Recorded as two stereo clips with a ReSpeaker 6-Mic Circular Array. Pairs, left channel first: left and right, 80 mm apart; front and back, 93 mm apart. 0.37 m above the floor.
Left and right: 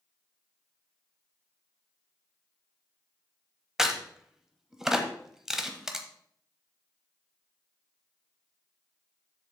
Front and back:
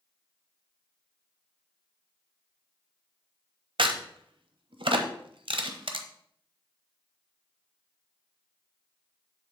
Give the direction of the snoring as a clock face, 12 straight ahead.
I don't hear snoring.